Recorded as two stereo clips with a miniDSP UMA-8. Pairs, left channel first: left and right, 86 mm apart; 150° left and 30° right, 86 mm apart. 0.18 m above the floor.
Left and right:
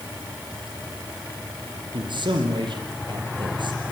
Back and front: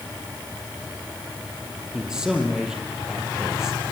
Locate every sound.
1.9 s a man speaking: 110° right, 4.5 m